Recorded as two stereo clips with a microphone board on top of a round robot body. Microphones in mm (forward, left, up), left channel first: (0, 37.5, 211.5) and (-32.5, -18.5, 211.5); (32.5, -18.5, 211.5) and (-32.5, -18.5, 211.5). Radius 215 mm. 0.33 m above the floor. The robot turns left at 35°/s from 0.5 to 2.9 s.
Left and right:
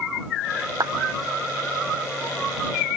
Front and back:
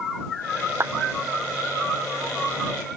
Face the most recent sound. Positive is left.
turn(degrees=150)